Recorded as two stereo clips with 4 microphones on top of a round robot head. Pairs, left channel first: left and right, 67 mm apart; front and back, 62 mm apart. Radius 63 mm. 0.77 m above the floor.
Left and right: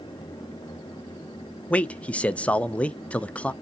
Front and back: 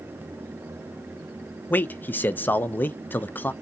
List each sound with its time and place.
1.7 s a man speaking: 35° left, 0.5 m